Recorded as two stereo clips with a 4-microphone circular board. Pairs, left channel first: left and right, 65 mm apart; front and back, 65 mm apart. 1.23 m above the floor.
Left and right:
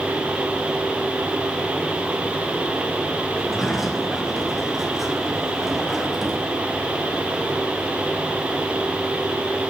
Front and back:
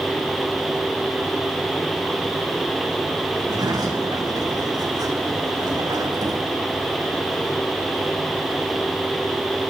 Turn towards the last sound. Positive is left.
turn(degrees=180)